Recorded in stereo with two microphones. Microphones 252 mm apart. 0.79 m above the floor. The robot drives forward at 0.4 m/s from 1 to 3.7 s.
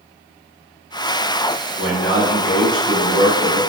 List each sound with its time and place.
1.8 s a man speaking: 15° right (ahead or behind), 1.5 m; by 3.6 s 20° right (ahead or behind), 1.1 m